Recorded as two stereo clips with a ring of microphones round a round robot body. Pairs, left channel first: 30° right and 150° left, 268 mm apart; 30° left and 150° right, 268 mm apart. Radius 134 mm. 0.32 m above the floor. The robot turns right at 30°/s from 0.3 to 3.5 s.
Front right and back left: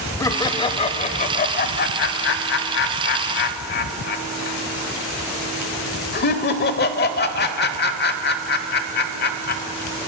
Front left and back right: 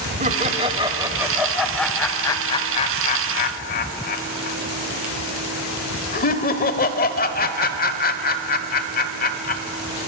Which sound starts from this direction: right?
Laughter, at 0.2 s.